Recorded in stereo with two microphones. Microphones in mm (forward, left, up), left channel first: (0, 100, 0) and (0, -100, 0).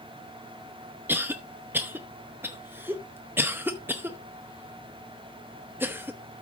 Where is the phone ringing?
I don't hear a phone ringing.